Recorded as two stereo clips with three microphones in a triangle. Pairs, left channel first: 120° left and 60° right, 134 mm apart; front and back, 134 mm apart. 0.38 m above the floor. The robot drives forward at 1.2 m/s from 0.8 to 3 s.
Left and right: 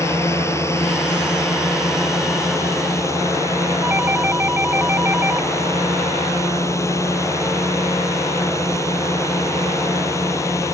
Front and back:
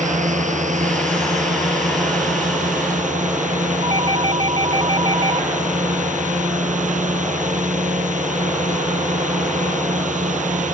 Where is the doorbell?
135° right.